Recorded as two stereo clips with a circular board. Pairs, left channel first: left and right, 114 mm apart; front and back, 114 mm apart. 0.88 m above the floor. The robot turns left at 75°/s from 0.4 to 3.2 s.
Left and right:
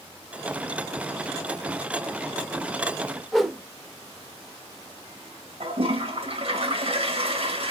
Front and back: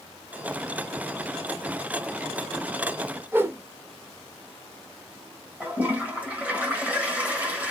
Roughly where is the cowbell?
No cowbell in this recording.